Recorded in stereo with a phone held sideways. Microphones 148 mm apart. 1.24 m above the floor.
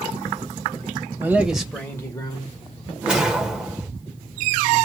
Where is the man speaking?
15° right (ahead or behind), 0.8 m; by 2.9 s 45° left (ahead or behind), 1.1 m.